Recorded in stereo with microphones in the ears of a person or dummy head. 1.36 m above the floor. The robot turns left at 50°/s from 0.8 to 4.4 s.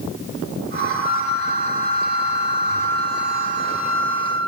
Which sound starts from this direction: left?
A flute, at 1.0 s.